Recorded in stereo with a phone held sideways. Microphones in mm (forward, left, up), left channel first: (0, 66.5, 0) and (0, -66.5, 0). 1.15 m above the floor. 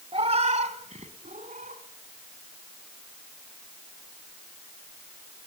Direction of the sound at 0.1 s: 45° right (ahead or behind).